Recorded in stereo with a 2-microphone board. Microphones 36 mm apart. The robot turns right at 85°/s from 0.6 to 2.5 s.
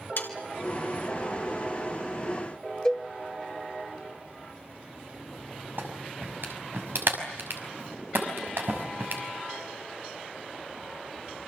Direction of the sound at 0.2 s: 70° left (ahead or behind).